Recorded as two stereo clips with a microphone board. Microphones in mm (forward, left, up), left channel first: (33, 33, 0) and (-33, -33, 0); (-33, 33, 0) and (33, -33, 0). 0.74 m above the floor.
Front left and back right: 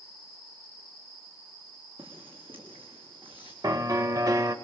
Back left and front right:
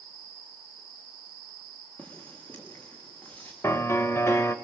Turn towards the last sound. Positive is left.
turn(degrees=-170)